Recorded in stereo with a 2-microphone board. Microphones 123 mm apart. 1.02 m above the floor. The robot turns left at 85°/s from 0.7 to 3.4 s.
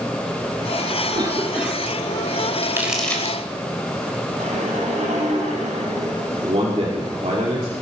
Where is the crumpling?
30° right (ahead or behind), 3.5 m; by 3.4 s 30° left (ahead or behind), 3.5 m.